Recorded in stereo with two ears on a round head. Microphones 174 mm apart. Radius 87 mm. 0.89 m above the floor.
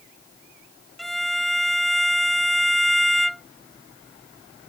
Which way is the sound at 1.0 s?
Centre (ahead or behind).